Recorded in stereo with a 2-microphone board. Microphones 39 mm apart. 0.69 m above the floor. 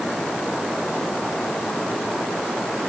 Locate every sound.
Only background noise.